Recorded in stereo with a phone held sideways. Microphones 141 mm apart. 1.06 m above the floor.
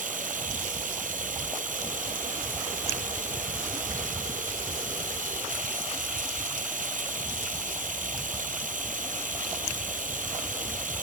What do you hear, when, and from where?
0.0 s running water: 80° right